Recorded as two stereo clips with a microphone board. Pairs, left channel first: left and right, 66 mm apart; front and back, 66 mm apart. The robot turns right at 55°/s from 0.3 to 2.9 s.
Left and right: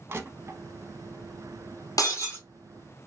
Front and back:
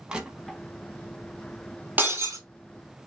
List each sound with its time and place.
0.1 s crushing: 110° right, 0.8 m; by 0.6 s 90° right, 0.8 m
2.0 s breaking glass: 115° left, 1.1 m; by 2.4 s 140° left, 1.1 m